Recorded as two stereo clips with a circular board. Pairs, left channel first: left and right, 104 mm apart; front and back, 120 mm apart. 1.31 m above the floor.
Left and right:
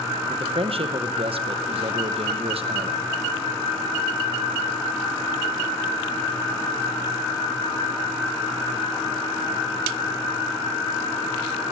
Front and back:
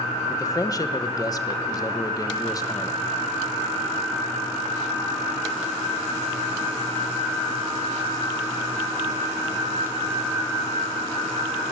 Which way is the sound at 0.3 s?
60° right.